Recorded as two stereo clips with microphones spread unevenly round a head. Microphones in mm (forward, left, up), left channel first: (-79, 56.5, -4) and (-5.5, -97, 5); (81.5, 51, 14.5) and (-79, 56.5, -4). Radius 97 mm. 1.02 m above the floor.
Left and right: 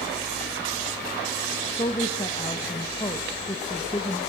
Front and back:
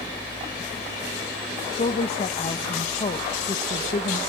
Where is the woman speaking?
50° left, 1.1 m.